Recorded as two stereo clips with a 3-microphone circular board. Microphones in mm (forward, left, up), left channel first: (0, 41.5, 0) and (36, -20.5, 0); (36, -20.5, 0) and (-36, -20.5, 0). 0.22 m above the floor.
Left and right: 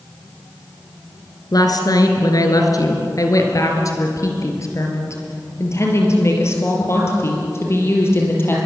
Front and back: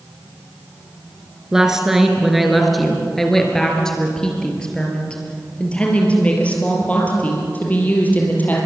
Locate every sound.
1.5 s a woman speaking: 100° left, 3.5 m; by 8.6 s 65° left, 6.5 m